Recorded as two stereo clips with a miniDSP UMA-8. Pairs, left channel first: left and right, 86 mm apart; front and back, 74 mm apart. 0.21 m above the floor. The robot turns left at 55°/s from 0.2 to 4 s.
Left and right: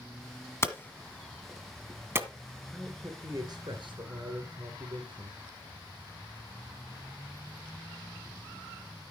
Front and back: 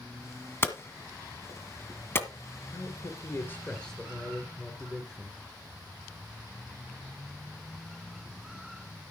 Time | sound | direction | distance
0.6 | hammering | 45° left | 1.4 m
2.7 | a man speaking | 15° right | 2.5 m